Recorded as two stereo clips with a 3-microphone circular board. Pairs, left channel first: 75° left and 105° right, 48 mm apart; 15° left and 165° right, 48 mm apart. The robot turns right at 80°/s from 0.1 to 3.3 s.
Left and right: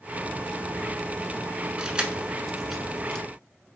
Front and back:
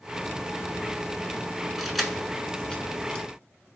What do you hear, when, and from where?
1.8 s keys jangling: 95° right, 0.9 m; by 3.2 s 25° left, 0.9 m